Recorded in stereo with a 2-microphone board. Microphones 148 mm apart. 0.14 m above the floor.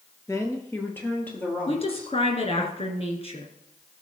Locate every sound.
0.3 s a woman speaking: 20° left (ahead or behind), 2 m; by 2.7 s 10° left (ahead or behind), 4.5 m
1.7 s a woman speaking: 45° left (ahead or behind), 2 m